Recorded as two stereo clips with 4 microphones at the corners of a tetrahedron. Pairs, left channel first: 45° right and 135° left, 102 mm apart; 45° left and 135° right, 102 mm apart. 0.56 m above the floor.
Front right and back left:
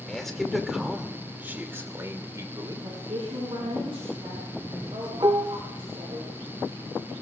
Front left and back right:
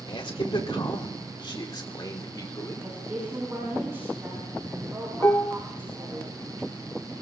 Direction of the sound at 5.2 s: 100° left.